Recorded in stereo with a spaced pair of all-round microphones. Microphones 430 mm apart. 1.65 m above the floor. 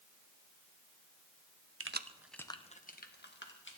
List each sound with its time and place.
1.8 s keys jangling: 35° right (ahead or behind), 0.6 m; by 3.8 s 30° left (ahead or behind), 2 m